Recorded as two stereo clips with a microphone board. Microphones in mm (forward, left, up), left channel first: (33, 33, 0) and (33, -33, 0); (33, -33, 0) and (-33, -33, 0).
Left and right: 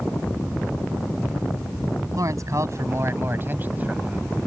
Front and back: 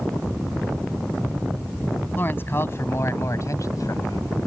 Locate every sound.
2.2 s a man speaking: 60° right; by 4.3 s 15° right